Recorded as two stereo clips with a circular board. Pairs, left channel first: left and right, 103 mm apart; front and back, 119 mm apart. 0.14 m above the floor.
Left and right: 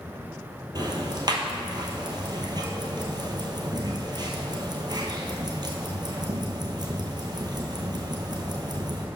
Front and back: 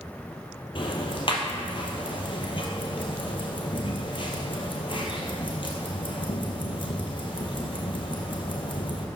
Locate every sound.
0.8 s ticking: 45° right, 1.1 m